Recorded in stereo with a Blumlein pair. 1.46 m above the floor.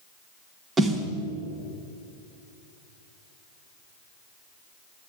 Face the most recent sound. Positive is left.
turn(degrees=-15)